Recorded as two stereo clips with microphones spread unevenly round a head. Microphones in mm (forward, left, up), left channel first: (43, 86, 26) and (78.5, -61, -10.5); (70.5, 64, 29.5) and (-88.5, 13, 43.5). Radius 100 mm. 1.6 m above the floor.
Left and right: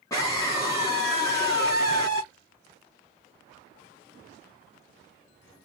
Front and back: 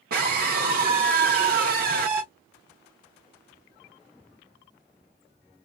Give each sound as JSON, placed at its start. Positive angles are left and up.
{"t": 0.1, "sound": "a scream", "azimuth_deg": 170, "distance_m": 1.0}